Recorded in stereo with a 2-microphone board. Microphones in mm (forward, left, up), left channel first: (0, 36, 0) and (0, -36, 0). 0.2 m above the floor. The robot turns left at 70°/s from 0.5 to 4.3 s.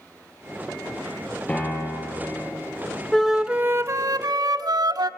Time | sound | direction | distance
1.5 | a piano | 170° left | 7.5 m
3.1 | a flute | 10° left | 0.6 m